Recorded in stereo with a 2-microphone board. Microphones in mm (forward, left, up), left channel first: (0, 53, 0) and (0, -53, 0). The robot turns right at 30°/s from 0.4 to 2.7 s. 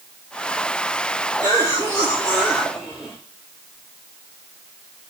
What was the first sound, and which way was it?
A cough, 45° right.